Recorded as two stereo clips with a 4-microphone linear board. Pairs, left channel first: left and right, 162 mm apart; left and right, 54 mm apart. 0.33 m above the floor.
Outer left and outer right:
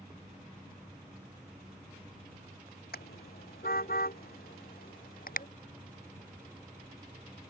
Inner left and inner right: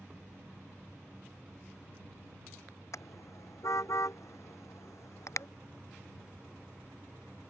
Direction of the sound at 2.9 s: 70° left (ahead or behind).